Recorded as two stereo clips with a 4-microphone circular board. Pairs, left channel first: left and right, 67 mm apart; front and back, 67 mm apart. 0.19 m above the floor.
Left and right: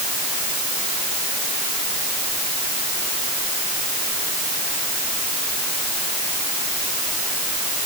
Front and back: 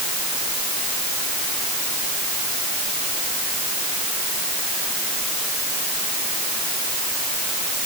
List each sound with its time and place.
Only background noise.